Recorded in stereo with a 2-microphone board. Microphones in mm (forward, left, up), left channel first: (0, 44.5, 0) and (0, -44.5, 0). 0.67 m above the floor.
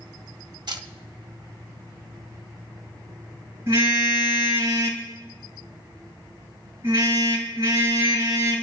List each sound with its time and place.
0.7 s a camera shutter: 55° right (ahead or behind), 1.3 m
3.7 s a car horn: 30° right (ahead or behind), 5.5 m